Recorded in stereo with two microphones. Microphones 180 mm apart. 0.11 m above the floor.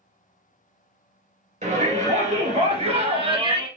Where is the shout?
45° right (ahead or behind), 2.0 m; by 3.7 s 25° right (ahead or behind), 1.6 m.